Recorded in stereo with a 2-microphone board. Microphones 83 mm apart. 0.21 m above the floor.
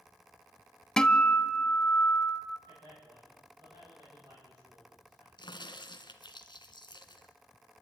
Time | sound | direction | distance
1.0 | a guitar | 10° left (ahead or behind) | 0.7 m
2.7 | a man speaking | 60° right (ahead or behind) | 10 m
5.4 | a crack | 60° left (ahead or behind) | 1.4 m